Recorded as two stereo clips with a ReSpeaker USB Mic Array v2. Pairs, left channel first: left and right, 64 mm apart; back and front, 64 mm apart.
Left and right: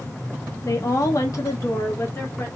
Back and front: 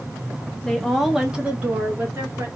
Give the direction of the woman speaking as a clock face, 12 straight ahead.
9 o'clock.